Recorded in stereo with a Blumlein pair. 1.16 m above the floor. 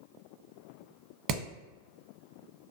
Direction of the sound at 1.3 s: 35° right.